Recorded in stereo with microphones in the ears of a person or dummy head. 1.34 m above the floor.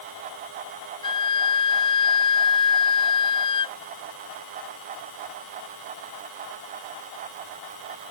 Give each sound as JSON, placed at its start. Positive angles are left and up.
{"t": 1.0, "sound": "a flute", "side_deg": 25}